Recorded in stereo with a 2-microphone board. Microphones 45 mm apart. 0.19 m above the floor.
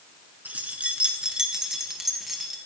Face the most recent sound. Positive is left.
turn(degrees=0)  # may be behind; listen again after turning